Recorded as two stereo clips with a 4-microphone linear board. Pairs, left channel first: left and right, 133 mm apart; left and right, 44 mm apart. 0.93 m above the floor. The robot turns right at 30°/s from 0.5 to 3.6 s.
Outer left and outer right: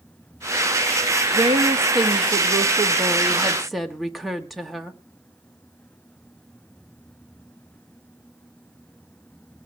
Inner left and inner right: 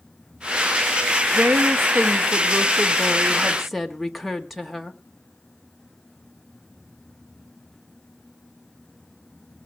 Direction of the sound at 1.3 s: 65° right.